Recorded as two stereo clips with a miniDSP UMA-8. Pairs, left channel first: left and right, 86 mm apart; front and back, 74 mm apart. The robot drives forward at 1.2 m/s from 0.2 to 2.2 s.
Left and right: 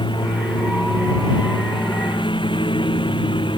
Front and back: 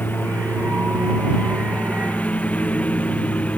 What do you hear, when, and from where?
0.0 s a lawn mower: 65° left; by 3.6 s 70° left